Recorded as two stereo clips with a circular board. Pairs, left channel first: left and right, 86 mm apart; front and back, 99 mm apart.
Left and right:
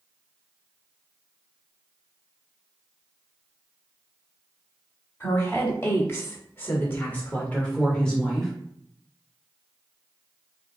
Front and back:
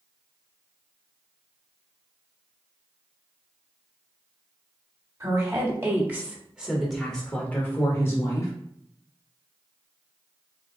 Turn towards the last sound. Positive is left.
turn(degrees=10)